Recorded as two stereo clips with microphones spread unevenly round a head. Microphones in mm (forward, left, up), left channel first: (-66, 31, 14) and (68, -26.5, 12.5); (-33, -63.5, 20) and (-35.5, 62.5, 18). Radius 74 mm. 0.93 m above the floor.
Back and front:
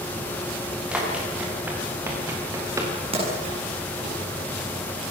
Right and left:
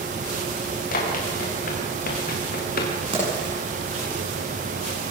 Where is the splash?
30° left, 9 m.